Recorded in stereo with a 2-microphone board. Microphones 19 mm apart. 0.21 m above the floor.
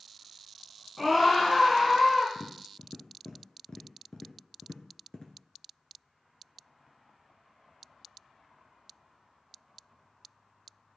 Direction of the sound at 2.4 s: 45° left (ahead or behind).